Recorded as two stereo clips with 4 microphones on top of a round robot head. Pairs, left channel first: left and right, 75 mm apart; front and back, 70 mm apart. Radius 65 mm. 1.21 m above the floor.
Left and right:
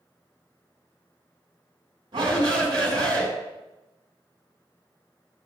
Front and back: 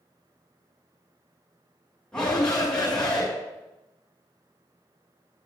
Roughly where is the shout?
Right.